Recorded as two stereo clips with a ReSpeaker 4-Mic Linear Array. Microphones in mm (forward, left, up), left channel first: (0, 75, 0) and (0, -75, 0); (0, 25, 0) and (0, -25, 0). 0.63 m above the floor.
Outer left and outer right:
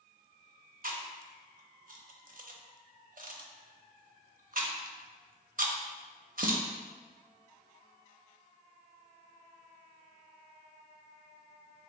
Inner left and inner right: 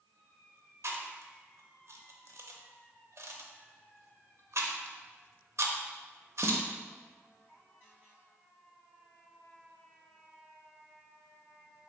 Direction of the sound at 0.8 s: 65° right (ahead or behind).